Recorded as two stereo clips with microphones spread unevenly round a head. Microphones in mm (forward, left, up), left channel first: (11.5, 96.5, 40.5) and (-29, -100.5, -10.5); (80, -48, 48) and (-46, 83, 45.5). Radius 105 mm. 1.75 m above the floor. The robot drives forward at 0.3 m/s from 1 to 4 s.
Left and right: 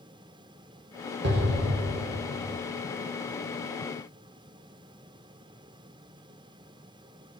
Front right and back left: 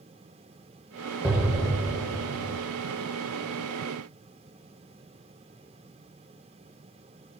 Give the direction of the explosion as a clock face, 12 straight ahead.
5 o'clock.